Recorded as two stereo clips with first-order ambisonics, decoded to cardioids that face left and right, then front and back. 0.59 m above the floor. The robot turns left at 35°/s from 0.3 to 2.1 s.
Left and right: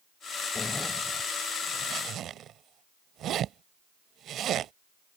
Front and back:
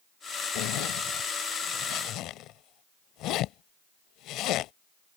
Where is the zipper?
15° left; by 4.7 s 40° right.